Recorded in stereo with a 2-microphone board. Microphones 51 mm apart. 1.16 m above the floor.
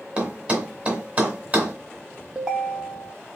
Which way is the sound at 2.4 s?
15° right (ahead or behind).